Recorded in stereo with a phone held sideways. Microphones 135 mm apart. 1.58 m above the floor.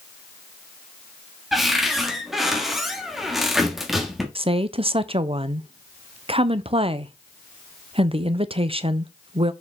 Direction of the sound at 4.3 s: 40° right (ahead or behind).